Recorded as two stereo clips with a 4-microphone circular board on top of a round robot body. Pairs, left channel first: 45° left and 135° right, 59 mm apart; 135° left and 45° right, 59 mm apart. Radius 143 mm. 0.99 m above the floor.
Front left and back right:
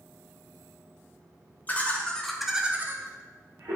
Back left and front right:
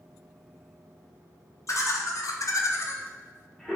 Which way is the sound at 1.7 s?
105° left.